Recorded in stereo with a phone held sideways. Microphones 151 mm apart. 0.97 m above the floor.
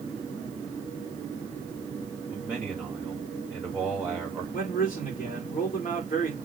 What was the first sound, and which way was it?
A man speaking, 10° right (ahead or behind).